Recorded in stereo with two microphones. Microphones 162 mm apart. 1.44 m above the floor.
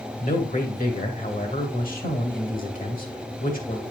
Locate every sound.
0.2 s a man speaking: 55° left (ahead or behind), 2 m